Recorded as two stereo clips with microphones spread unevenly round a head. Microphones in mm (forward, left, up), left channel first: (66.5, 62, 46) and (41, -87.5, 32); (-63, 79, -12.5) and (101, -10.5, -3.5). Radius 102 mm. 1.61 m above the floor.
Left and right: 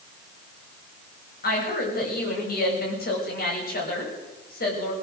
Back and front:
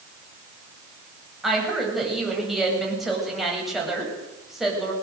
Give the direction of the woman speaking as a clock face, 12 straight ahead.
10 o'clock.